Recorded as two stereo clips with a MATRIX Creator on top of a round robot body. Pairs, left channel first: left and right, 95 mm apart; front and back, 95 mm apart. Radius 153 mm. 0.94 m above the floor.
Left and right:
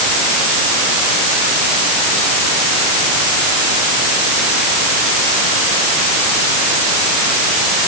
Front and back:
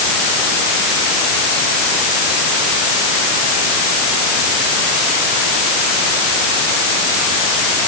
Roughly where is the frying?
No frying in this recording.